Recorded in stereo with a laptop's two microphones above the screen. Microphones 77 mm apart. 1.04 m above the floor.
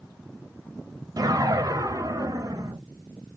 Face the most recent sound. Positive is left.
turn(degrees=-50)  # may be behind; listen again after turning